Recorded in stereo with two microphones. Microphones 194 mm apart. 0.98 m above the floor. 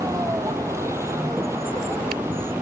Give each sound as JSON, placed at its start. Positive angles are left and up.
{"t": 0.0, "sound": "a vehicle", "side_deg": -15}